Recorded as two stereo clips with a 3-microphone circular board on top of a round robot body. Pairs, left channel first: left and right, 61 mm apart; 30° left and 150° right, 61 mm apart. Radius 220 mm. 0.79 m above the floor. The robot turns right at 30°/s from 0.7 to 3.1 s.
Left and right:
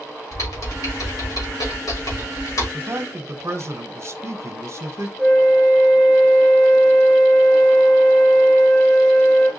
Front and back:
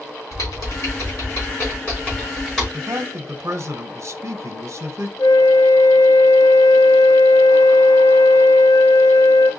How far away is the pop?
No pop in this recording.